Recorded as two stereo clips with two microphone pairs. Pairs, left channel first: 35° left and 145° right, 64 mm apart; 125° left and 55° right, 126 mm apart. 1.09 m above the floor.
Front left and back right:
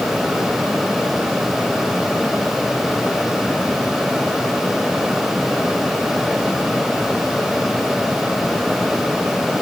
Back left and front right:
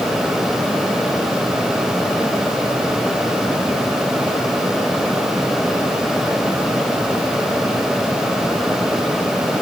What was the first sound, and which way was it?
Only background noise.